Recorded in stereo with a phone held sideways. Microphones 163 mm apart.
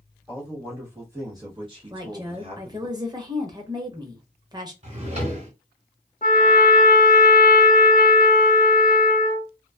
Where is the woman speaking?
25° right (ahead or behind), 0.8 m.